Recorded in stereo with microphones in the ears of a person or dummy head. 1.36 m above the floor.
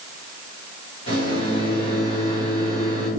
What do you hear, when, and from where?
1.1 s a microwave: 35° left (ahead or behind), 1.5 m